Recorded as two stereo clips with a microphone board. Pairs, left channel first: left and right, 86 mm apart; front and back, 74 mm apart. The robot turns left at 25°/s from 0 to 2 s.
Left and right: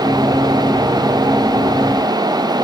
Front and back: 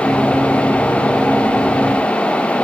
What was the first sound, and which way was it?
Only background noise.